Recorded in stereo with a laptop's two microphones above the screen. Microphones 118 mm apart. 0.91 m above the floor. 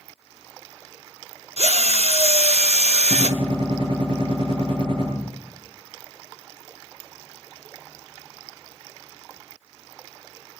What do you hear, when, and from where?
1.6 s a drill: 60° right (ahead or behind), 0.8 m
3.1 s a gunshot: 50° right (ahead or behind), 7.5 m